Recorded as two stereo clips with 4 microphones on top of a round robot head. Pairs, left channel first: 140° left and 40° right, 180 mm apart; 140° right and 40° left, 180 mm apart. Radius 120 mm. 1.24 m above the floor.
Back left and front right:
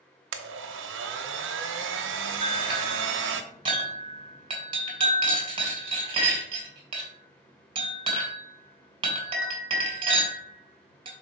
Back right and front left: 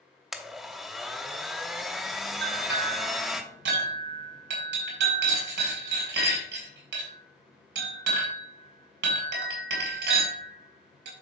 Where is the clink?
20° left, 3 m.